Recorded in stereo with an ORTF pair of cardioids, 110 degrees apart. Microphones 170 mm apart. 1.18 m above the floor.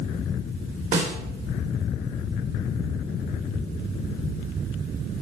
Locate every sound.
0.9 s a snare drum: 45° right, 1.8 m